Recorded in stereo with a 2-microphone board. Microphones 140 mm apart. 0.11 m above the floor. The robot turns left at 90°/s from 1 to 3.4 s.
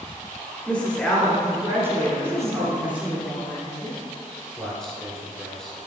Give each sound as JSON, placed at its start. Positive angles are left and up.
{"t": 0.7, "sound": "a woman speaking", "side_deg": 10, "distance_m": 1.5}
{"t": 2.2, "sound": "a woman speaking", "azimuth_deg": 170, "distance_m": 1.7}
{"t": 4.6, "sound": "a man speaking", "side_deg": 5, "distance_m": 1.3}